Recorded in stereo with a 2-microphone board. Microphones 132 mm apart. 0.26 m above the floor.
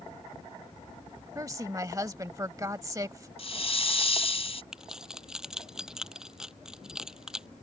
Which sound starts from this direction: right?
A woman speaking, at 1.4 s.